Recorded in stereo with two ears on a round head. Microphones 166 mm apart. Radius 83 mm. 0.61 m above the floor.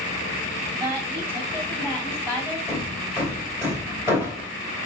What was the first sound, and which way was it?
A woman speaking, 15° right (ahead or behind).